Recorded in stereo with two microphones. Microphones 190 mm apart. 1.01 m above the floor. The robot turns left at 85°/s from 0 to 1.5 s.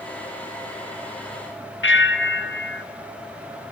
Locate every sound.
1.8 s a bell: 85° left, 1.4 m